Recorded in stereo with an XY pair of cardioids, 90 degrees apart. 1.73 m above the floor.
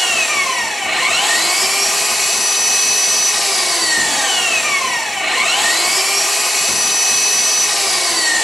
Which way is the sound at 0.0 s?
15° left.